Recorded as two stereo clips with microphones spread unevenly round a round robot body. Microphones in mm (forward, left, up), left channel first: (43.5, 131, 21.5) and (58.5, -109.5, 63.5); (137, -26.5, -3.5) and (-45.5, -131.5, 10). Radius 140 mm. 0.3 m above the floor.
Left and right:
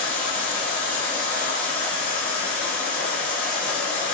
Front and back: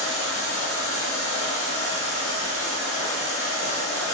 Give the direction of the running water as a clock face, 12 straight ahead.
11 o'clock.